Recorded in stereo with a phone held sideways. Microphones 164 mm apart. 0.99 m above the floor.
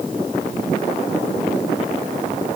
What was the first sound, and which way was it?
Only background noise.